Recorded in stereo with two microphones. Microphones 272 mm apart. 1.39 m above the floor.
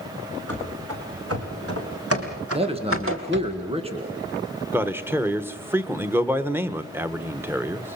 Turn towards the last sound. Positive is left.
turn(degrees=-10)  # may be behind; listen again after turning